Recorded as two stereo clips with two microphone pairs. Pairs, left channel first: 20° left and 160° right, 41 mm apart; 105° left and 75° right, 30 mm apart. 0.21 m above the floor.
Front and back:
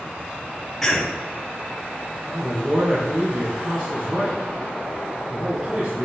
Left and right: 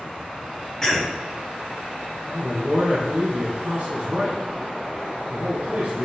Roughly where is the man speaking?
Behind right.